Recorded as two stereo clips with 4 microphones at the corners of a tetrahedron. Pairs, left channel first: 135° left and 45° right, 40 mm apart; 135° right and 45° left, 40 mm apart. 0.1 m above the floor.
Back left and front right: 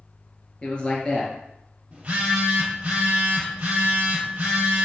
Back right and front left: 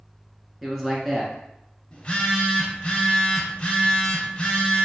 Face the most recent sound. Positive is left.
turn(degrees=-95)